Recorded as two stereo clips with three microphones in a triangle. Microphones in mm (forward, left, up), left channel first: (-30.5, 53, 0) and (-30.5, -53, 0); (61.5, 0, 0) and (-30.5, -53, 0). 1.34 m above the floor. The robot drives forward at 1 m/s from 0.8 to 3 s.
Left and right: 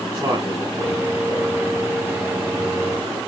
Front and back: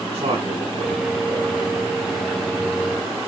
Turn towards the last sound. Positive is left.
turn(degrees=-155)